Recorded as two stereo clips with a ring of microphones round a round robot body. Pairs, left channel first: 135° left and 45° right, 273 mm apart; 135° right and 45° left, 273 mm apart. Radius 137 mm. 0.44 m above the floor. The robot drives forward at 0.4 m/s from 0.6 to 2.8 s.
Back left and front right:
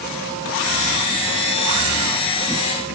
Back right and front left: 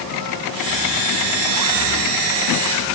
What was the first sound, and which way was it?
Only background noise.